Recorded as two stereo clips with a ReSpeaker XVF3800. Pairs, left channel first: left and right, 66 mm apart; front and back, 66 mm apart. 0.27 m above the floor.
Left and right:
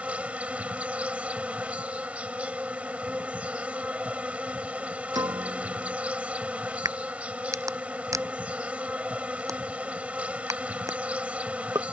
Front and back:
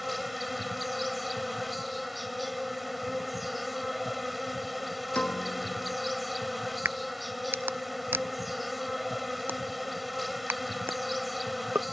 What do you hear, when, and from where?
0.0 s an insect: 95° right
5.2 s a piano: 70° right
6.8 s a crack: 120° right